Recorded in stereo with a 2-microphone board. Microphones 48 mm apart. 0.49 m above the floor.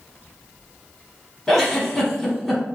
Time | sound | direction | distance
1.5 | a giggle | 5° left (ahead or behind) | 0.8 m